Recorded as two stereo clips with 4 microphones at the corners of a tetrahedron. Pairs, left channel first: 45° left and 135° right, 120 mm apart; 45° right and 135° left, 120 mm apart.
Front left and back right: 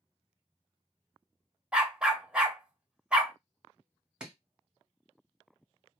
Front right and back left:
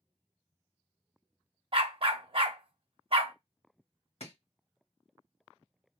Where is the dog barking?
145° left, 0.7 m.